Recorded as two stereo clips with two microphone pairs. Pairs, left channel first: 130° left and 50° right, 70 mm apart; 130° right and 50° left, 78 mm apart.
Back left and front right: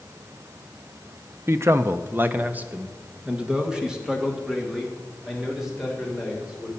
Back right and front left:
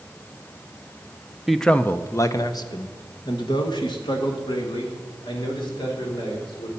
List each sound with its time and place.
1.5 s a man speaking: 40° right, 0.7 m; by 6.7 s 135° right, 4 m